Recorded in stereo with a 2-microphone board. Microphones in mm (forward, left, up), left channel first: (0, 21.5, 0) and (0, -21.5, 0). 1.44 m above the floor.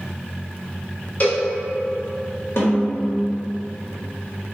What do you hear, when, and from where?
1.2 s a cowbell: 50° left (ahead or behind), 1.3 m
2.6 s a snare drum: 70° left (ahead or behind), 1.3 m